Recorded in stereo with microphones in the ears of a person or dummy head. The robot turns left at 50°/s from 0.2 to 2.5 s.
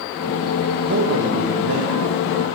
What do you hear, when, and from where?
0.8 s a man speaking: 60° right, 1.2 m; by 2.5 s 140° right, 1.2 m